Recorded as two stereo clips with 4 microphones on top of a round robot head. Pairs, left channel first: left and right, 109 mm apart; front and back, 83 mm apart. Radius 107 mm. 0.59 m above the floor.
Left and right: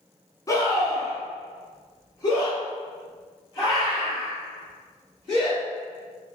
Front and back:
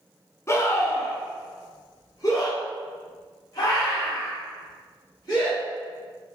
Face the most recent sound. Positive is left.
turn(degrees=40)